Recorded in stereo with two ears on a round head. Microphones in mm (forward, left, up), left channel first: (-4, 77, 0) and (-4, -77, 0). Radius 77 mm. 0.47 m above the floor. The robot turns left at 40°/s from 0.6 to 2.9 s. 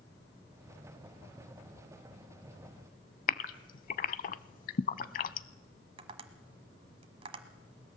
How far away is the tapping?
About 1.3 m.